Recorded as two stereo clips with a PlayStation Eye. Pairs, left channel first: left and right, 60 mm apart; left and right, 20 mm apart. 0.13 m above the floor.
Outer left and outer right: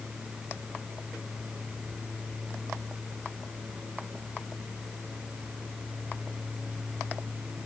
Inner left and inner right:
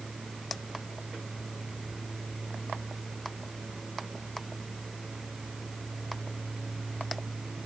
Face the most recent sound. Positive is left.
No sound to turn to.